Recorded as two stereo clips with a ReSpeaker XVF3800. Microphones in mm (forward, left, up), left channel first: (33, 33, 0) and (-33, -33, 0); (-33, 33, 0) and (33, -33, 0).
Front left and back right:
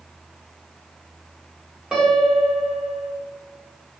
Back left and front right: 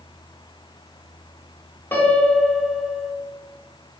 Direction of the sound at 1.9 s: 150° left.